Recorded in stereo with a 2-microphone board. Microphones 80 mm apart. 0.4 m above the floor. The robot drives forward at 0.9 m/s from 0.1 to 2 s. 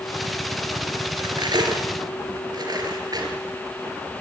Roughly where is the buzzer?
I don't hear a buzzer.